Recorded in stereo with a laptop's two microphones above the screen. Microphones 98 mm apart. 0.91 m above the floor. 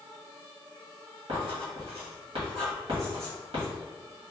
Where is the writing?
75° right (ahead or behind), 1.7 m.